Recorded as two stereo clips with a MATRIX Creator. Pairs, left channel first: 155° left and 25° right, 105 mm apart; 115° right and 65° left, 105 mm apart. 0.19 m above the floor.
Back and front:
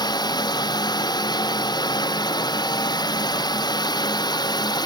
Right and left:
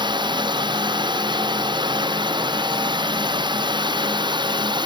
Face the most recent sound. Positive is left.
turn(degrees=110)